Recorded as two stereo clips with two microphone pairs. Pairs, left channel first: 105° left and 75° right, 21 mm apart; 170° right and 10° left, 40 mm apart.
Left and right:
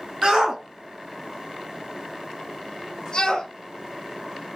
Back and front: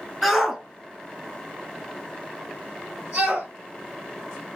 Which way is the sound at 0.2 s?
70° right.